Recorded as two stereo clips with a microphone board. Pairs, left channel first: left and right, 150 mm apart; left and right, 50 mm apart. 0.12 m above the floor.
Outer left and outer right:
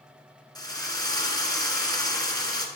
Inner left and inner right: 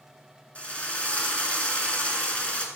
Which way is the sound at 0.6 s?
25° left (ahead or behind).